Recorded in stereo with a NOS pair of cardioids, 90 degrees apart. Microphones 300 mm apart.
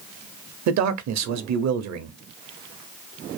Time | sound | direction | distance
0.7 | a man speaking | 65° right | 0.9 m